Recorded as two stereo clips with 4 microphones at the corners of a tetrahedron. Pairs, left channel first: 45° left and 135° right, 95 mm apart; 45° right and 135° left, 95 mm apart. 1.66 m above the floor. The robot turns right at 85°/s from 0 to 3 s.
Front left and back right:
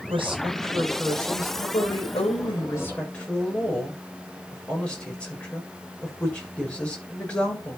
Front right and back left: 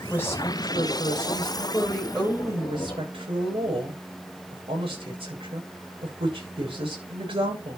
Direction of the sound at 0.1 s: 125° right.